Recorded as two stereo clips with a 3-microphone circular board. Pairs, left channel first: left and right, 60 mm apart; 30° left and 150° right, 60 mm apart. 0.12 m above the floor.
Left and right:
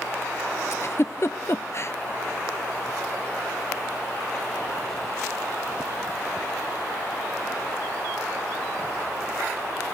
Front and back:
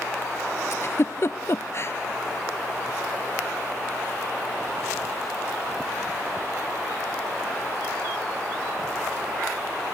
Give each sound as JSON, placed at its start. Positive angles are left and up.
{"t": 0.7, "sound": "a giggle", "azimuth_deg": 60, "distance_m": 0.7}